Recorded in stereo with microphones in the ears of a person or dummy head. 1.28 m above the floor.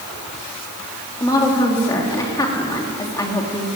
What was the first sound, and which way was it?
A woman speaking, 15° left (ahead or behind).